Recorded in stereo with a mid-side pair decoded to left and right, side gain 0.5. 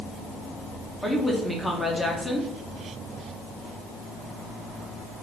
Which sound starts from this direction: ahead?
A woman speaking, at 1.0 s.